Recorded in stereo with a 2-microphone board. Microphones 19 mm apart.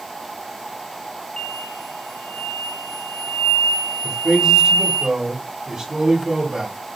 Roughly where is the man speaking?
Right.